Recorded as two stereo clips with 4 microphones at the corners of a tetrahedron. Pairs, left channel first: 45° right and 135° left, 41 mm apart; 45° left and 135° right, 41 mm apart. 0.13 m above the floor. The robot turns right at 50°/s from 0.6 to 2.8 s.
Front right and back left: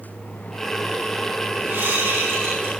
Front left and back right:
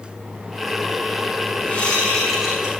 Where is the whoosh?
105° left, 9 m; by 2.7 s 155° left, 9 m.